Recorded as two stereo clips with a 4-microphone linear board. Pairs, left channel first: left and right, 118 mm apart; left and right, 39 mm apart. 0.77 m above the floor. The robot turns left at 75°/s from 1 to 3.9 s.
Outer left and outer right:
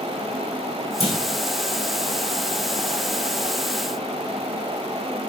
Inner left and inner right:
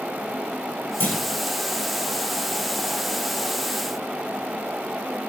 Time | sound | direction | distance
1.0 | a clunk | 60° left (ahead or behind) | 2 m